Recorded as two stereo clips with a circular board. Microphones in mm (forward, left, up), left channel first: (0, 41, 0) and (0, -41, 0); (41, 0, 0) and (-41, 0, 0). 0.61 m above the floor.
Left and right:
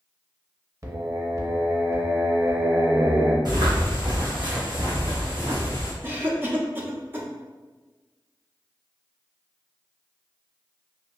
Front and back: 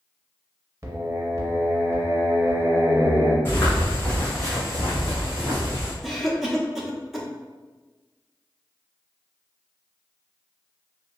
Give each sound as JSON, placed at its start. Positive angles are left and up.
{"t": 0.8, "sound": "singing", "azimuth_deg": -135, "distance_m": 0.5}
{"t": 3.5, "sound": "footsteps", "azimuth_deg": -65, "distance_m": 1.4}
{"t": 6.0, "sound": "a cough", "azimuth_deg": -95, "distance_m": 0.5}